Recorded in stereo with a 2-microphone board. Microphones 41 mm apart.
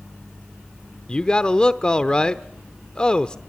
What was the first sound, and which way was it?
A man speaking, 25° left (ahead or behind).